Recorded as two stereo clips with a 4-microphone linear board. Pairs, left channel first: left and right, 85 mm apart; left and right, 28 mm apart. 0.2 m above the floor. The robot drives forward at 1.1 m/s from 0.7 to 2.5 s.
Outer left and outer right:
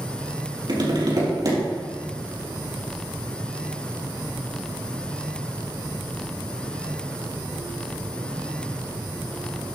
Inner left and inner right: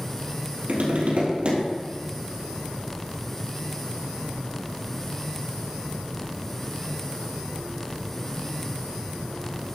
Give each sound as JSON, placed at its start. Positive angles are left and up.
{"t": 0.7, "sound": "tapping", "side_deg": -60, "distance_m": 3.5}